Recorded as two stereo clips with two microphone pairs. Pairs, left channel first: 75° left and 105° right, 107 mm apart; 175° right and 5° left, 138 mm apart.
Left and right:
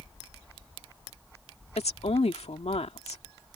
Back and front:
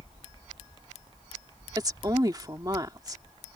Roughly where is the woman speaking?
Ahead left.